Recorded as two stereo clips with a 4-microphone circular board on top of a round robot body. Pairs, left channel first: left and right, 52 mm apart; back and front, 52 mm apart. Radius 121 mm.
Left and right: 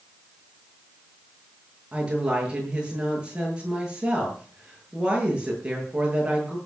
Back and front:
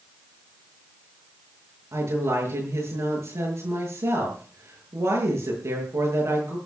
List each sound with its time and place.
1.9 s a woman speaking: 20° right, 8 m